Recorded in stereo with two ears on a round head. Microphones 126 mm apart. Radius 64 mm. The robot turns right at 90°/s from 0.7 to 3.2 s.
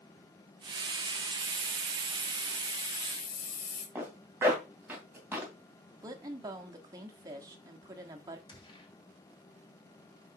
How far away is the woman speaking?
About 1.2 m.